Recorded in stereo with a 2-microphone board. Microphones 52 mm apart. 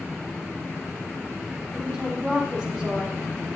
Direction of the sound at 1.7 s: 15° right (ahead or behind).